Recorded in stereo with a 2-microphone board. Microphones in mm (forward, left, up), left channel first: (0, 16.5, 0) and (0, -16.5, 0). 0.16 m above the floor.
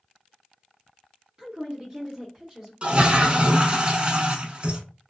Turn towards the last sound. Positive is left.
turn(degrees=-35)  # may be behind; listen again after turning